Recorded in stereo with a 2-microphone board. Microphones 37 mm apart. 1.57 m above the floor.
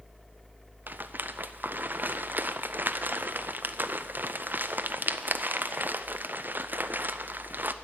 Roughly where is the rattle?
Right.